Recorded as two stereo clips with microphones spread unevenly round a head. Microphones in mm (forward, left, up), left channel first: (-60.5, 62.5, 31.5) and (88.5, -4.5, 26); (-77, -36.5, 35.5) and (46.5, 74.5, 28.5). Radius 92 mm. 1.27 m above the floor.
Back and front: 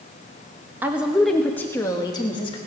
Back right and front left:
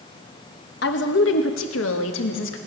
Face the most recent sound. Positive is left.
turn(degrees=-140)